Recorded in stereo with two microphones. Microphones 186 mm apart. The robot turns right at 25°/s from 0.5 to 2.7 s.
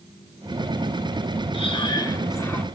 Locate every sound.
1.5 s breathing: 35° left (ahead or behind), 1.8 m; by 2.6 s 10° left (ahead or behind), 1.8 m